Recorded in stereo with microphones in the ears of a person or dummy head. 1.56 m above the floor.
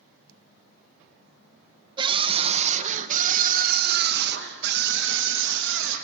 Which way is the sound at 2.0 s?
30° right (ahead or behind).